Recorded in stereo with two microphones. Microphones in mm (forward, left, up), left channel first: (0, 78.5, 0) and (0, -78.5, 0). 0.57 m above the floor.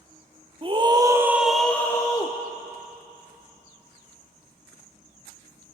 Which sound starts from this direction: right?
A scream, at 0.6 s.